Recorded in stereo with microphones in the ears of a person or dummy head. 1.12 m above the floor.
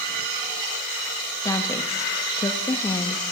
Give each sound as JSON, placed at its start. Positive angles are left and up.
{"t": 1.4, "sound": "a woman speaking", "side_deg": 20, "distance_m": 1.4}